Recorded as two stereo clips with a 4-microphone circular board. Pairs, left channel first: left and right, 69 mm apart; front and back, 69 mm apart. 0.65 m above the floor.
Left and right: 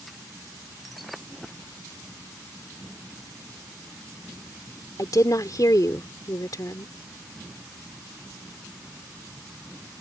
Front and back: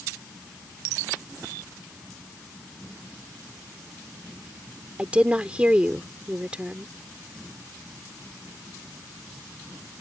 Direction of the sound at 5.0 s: 110° left.